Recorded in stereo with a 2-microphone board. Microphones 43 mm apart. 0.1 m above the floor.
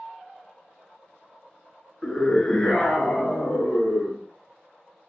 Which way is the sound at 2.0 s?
15° left (ahead or behind).